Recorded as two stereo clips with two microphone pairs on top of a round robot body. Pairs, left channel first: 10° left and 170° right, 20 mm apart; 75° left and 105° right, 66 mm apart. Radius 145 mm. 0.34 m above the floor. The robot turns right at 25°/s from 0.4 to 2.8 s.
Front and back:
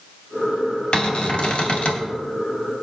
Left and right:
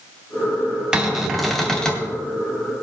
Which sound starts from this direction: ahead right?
A cupboard door, at 0.9 s.